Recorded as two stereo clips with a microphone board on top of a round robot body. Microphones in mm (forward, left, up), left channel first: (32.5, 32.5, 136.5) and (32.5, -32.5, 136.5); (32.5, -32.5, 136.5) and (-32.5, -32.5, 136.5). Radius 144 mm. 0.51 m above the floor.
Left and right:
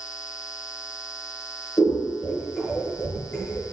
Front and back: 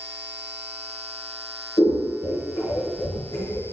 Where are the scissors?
30° left, 0.7 m.